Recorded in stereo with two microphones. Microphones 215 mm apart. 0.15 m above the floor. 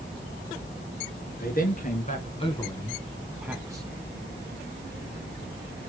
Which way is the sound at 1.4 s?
45° left (ahead or behind).